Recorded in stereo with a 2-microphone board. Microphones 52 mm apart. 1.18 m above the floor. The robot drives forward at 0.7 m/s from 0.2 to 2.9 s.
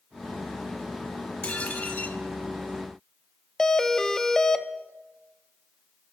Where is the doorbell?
10° left (ahead or behind), 1.1 m.